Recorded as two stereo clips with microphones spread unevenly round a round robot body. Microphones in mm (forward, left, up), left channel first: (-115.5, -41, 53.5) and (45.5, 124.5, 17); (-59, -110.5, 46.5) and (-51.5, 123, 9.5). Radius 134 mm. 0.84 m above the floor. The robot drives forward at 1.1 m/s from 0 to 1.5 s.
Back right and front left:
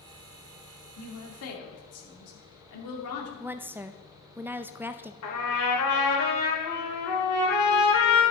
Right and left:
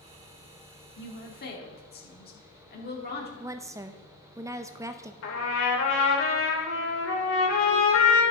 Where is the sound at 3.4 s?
80° left, 0.5 m.